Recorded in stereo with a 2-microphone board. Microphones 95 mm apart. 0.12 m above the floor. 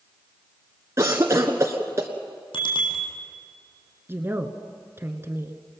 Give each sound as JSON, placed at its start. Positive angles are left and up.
{"t": 1.0, "sound": "a cough", "side_deg": -35, "distance_m": 1.3}
{"t": 2.5, "sound": "a bicycle bell", "side_deg": 70, "distance_m": 3.0}
{"t": 4.1, "sound": "a woman speaking", "side_deg": -25, "distance_m": 1.4}